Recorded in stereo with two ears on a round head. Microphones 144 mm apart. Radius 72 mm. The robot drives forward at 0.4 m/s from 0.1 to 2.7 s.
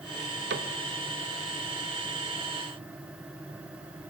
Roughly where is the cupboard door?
Right.